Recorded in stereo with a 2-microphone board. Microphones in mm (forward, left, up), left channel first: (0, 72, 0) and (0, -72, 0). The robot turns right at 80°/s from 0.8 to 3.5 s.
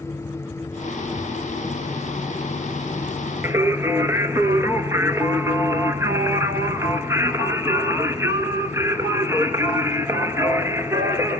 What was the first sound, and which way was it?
Singing, 15° right (ahead or behind).